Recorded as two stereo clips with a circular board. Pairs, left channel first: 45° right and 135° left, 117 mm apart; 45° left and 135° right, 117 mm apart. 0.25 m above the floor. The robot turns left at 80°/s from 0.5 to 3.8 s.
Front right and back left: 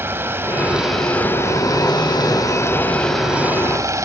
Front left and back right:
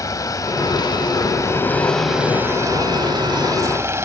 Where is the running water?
80° left, 1.1 m; by 4.0 s 175° left, 1.1 m.